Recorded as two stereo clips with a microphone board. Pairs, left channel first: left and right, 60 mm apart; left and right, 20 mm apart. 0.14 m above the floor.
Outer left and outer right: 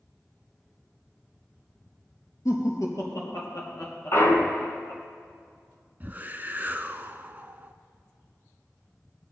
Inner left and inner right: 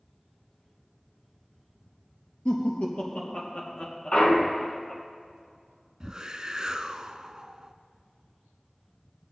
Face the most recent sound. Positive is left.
turn(degrees=-35)  # may be behind; listen again after turning